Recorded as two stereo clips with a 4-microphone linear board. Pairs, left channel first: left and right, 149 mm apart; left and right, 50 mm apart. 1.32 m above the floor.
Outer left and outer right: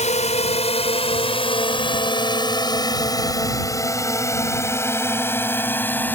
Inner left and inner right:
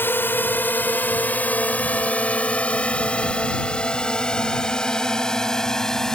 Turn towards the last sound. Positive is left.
turn(degrees=10)  # may be behind; listen again after turning